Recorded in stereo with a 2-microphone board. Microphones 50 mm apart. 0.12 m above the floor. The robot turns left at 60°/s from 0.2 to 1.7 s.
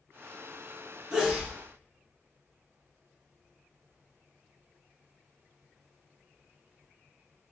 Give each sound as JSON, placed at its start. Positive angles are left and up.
{"t": 1.1, "sound": "a sneeze", "side_deg": -15, "distance_m": 1.1}